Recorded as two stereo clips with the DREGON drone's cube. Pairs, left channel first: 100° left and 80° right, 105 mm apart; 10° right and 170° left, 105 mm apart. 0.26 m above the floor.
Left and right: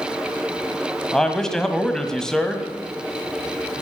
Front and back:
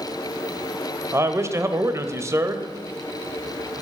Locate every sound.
1.1 s a man speaking: straight behind, 1.3 m